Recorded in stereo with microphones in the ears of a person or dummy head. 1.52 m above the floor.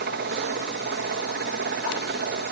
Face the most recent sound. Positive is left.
turn(degrees=-45)  # may be behind; listen again after turning